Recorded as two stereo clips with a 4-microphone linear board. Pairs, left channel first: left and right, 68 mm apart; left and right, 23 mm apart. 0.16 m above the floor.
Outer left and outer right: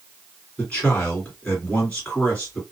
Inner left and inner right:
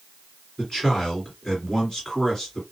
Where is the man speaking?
25° left (ahead or behind), 2.5 m.